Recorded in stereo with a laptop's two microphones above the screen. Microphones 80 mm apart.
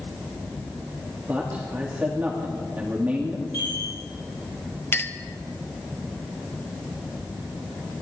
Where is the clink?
30° left (ahead or behind), 1.0 m.